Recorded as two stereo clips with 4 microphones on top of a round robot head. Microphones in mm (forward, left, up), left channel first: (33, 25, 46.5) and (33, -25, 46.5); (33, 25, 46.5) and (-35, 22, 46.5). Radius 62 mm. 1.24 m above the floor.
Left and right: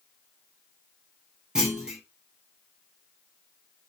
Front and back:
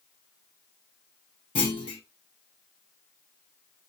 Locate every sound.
1.6 s a clunk: 20° right, 0.9 m